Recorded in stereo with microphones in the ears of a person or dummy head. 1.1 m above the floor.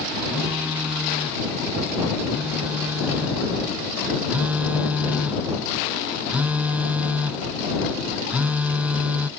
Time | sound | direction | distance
0.3 | a phone buzzing | 10° right (ahead or behind) | ?